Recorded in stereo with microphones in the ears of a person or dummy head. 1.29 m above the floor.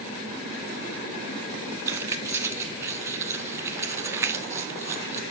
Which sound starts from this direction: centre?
Keys jangling, at 1.9 s.